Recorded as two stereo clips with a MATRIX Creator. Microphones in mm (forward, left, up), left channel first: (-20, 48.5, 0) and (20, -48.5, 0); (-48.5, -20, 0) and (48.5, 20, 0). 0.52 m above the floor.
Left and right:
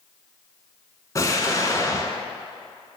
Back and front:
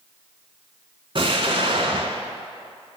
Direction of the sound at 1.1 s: 55° left.